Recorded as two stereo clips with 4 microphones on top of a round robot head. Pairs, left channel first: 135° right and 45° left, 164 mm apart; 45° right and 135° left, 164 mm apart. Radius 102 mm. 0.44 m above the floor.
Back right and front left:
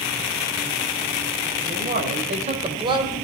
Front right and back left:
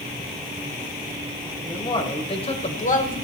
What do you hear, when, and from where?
1.6 s a man speaking: 20° left, 2.5 m; by 3.2 s 25° right, 1.8 m